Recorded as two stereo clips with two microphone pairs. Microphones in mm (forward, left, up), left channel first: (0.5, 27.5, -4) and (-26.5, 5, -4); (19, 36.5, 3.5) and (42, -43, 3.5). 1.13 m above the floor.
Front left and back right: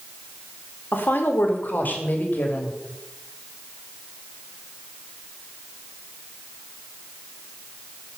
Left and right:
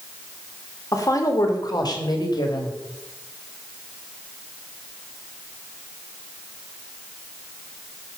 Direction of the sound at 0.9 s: 60° left.